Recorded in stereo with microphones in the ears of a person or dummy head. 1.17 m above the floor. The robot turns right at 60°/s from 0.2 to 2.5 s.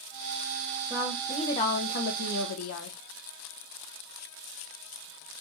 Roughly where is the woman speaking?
Ahead.